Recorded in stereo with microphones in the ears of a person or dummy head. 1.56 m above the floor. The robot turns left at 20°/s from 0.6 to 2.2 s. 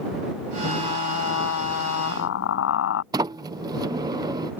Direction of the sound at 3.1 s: 20° right (ahead or behind).